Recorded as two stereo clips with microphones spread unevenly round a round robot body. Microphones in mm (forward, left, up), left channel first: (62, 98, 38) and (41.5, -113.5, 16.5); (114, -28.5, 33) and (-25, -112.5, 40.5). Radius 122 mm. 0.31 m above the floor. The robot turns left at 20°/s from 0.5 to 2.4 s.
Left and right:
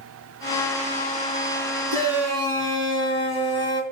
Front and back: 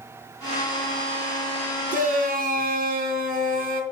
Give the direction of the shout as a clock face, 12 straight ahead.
4 o'clock.